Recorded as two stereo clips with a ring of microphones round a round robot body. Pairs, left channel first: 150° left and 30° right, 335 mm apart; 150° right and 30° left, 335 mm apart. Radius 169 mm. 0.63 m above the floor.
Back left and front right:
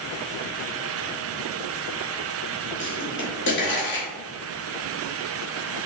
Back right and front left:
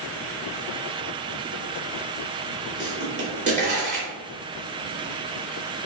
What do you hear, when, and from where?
2.8 s a pop: 95° left, 2 m